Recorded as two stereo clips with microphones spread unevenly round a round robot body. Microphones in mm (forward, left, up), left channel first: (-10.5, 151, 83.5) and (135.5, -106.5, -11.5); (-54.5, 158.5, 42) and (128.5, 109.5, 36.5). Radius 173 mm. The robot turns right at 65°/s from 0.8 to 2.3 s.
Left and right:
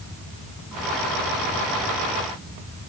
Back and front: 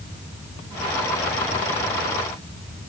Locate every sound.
Only background noise.